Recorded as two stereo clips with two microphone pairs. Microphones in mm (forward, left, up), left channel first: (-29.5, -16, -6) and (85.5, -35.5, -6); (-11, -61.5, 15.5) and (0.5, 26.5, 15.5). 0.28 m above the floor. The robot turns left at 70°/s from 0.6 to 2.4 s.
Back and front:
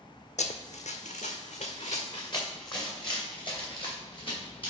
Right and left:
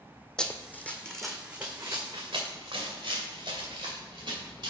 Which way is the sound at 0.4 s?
Straight behind.